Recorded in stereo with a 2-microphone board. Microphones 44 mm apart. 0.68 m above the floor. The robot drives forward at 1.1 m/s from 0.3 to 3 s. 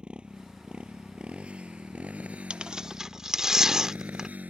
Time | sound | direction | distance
0.0 | a motorcycle | 20° right (ahead or behind) | ?
2.5 | tearing paper | 25° right (ahead or behind) | ?